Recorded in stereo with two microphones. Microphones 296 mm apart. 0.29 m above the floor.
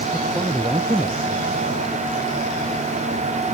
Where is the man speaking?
10° right (ahead or behind).